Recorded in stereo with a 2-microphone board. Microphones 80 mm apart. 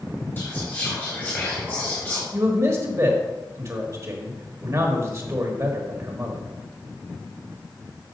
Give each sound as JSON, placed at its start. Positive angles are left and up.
{"t": 0.4, "sound": "whispering", "side_deg": 25, "distance_m": 2.0}
{"t": 2.3, "sound": "a man speaking", "side_deg": -40, "distance_m": 1.2}